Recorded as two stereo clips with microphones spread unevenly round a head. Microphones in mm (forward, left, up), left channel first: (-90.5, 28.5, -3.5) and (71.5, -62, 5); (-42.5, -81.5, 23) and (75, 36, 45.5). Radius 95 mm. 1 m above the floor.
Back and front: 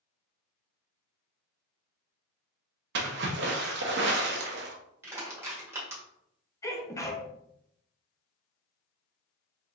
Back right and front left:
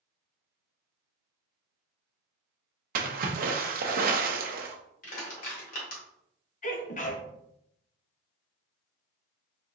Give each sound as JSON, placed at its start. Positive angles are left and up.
{"t": 3.0, "sound": "a splash", "azimuth_deg": 10, "distance_m": 0.7}
{"t": 5.0, "sound": "crushing", "azimuth_deg": -105, "distance_m": 1.7}
{"t": 6.6, "sound": "a sneeze", "azimuth_deg": -140, "distance_m": 1.0}